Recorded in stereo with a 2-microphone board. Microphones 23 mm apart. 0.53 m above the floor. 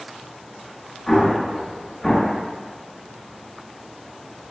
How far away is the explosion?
About 1.3 m.